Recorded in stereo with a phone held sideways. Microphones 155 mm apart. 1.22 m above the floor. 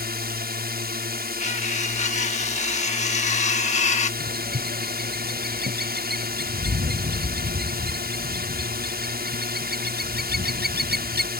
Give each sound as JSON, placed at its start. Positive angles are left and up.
{"t": 0.0, "sound": "a drone", "side_deg": -70}
{"t": 1.4, "sound": "cutlery clinking", "side_deg": 45}
{"t": 4.2, "sound": "a bird", "side_deg": -75}